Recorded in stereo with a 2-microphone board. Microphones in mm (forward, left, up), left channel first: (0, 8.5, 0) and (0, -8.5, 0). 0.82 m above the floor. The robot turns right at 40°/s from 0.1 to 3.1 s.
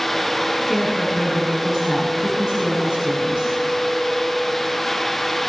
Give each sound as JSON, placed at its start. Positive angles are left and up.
{"t": 0.7, "sound": "a woman speaking", "azimuth_deg": -170, "distance_m": 8.5}